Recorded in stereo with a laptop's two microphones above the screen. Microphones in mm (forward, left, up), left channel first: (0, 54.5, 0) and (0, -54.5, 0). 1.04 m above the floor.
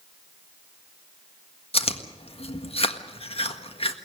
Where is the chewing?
60° left (ahead or behind), 1.6 m.